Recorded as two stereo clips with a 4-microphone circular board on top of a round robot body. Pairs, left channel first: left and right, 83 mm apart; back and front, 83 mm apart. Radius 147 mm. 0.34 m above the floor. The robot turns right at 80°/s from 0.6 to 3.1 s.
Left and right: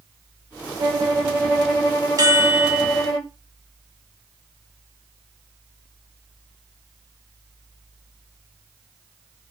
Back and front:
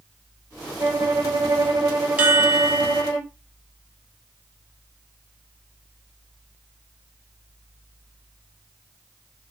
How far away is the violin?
About 1.2 m.